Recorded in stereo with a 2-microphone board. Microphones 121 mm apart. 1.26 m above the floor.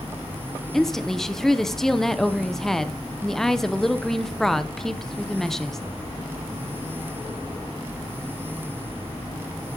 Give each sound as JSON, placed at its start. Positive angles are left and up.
{"t": 0.7, "sound": "a woman speaking", "side_deg": 5, "distance_m": 0.8}